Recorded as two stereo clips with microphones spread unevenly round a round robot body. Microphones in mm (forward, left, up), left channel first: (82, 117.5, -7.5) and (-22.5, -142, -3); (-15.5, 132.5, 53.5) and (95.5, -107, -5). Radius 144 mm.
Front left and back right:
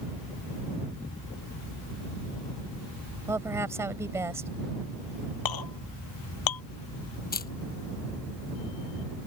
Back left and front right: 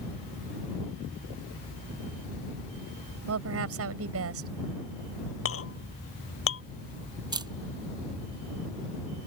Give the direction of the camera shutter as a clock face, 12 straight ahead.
12 o'clock.